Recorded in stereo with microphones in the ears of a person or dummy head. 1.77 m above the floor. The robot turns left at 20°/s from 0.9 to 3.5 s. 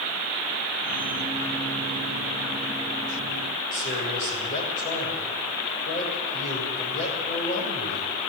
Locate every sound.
3.7 s a man speaking: 45° left (ahead or behind), 6.5 m